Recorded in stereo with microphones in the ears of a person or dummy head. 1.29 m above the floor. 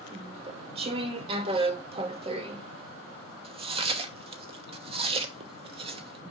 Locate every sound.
0.1 s chewing: 30° right (ahead or behind), 1.0 m